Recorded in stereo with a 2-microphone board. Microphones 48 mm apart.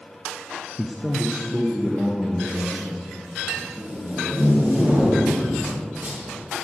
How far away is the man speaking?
About 0.6 m.